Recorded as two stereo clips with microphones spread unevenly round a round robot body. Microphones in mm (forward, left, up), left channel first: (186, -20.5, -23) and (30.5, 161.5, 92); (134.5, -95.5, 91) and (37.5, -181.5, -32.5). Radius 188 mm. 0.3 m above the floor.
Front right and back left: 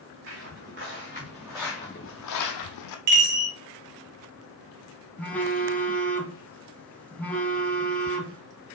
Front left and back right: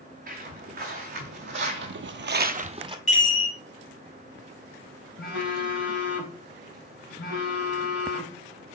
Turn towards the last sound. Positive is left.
turn(degrees=20)